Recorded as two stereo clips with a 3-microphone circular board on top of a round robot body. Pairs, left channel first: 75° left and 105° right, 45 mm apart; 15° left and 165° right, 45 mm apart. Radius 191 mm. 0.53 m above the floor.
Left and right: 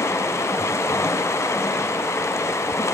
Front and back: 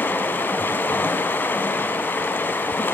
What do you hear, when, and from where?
0.0 s running water: 60° left, 1.1 m